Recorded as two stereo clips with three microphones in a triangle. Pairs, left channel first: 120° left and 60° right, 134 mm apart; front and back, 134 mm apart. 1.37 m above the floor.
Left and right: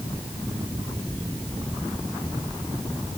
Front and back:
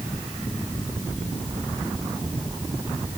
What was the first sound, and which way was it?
Only background noise.